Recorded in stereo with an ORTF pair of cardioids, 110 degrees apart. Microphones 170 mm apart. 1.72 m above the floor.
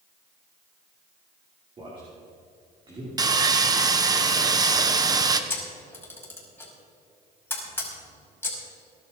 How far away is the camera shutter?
About 5 m.